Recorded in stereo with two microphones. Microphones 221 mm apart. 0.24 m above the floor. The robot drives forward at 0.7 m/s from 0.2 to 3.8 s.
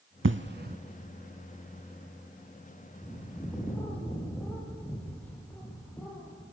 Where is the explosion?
65° right (ahead or behind), 0.6 m; by 0.8 s 45° right (ahead or behind), 0.8 m.